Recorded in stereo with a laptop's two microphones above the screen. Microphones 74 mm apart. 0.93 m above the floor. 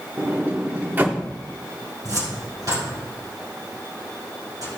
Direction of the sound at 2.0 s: 55° right (ahead or behind).